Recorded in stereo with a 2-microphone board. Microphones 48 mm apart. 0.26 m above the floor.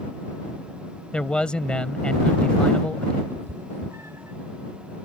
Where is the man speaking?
20° left (ahead or behind).